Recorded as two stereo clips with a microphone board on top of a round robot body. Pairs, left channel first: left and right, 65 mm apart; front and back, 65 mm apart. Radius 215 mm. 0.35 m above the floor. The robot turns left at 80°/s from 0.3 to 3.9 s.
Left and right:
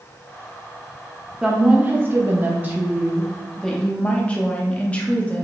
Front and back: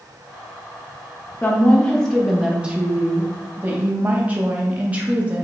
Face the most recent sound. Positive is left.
turn(degrees=140)